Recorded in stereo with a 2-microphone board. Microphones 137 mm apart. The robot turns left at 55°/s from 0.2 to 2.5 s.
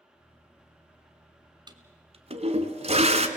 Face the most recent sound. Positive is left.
turn(degrees=-50)  # may be behind; listen again after turning